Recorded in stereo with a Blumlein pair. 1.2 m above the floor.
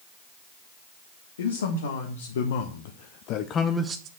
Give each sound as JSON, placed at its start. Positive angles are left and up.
{"t": 1.4, "sound": "a man speaking", "azimuth_deg": 65, "distance_m": 1.8}